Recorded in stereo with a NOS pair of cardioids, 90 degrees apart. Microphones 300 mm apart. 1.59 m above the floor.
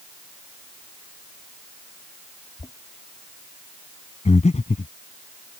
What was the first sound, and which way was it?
Knocking, 15° left.